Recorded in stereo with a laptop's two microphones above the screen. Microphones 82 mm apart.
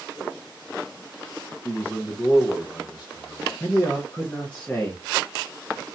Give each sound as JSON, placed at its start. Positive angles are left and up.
{"t": 1.6, "sound": "a man speaking", "side_deg": 35, "distance_m": 0.5}
{"t": 3.6, "sound": "a man speaking", "side_deg": 15, "distance_m": 0.6}